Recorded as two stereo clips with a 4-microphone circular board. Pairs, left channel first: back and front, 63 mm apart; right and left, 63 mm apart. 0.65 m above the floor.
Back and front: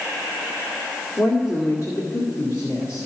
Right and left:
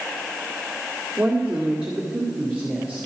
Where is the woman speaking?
155° left, 2 m.